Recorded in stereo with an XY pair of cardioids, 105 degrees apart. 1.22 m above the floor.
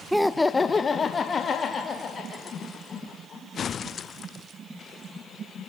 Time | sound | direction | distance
0.1 | laughter | 5° right | 0.5 m